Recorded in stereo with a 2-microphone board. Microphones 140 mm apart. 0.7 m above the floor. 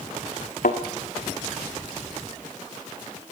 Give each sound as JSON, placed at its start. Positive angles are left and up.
{"t": 0.6, "sound": "a thud", "side_deg": 70, "distance_m": 2.0}